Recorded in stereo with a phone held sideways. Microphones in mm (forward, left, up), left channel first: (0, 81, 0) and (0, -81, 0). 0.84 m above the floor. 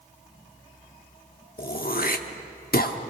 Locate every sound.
1.6 s throat clearing: 65° left (ahead or behind), 1.1 m